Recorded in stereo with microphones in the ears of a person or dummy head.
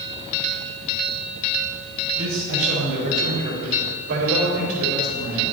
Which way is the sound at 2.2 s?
80° right.